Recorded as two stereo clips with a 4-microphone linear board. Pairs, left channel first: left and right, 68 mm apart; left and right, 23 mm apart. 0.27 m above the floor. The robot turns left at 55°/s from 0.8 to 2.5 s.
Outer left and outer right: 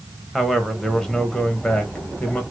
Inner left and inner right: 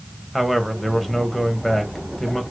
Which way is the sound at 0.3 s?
5° left (ahead or behind).